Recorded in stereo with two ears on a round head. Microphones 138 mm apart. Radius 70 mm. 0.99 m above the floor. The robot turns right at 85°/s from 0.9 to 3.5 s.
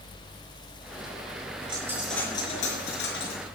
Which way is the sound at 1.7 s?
30° right.